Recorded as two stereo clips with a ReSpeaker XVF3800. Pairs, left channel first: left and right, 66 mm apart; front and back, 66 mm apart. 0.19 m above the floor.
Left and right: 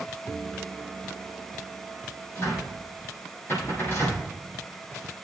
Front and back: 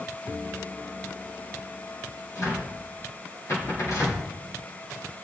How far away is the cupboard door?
About 6.5 m.